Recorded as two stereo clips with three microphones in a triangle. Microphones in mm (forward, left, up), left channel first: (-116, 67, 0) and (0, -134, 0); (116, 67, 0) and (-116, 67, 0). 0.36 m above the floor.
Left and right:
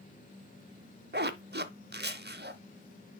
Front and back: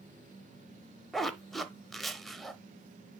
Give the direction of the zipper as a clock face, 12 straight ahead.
3 o'clock.